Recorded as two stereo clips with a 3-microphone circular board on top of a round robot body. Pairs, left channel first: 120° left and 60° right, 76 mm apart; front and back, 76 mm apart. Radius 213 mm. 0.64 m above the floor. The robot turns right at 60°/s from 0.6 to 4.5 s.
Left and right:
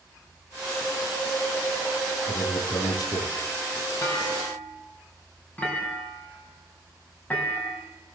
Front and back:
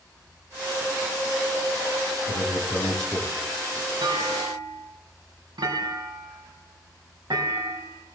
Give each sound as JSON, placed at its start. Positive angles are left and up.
{"t": 2.3, "sound": "a man speaking", "azimuth_deg": 40, "distance_m": 9.5}
{"t": 4.0, "sound": "a clunk", "azimuth_deg": 160, "distance_m": 6.0}